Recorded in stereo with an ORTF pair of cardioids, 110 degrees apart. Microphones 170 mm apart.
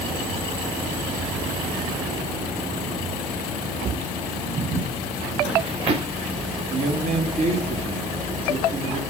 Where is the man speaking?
45° right, 4.5 m.